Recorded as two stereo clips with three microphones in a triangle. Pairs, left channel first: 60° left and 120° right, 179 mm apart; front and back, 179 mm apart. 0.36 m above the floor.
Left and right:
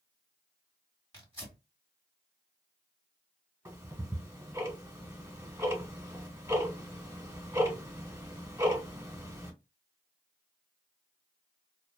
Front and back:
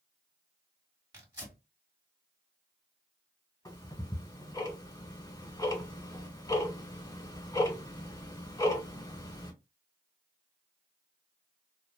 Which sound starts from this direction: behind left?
Tearing paper, at 1.1 s.